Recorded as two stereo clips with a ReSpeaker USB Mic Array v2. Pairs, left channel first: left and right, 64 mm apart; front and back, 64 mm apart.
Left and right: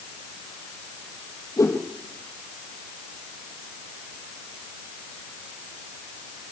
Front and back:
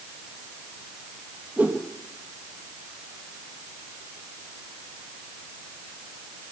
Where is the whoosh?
120° left, 3.5 m.